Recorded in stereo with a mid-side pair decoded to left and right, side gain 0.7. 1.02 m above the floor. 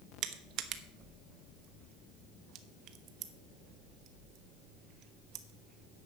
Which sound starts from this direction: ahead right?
Crushing, at 0.2 s.